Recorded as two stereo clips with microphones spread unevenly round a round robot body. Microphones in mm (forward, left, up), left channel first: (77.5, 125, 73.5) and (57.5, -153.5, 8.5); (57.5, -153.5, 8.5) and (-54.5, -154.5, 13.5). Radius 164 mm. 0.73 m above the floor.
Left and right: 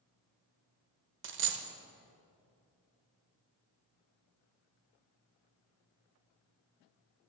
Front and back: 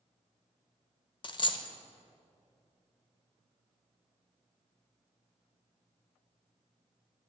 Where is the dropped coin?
40° right, 0.6 m.